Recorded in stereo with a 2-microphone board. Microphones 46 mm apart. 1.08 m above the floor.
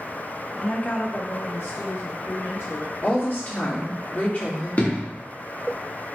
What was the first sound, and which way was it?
A woman speaking, 15° left (ahead or behind).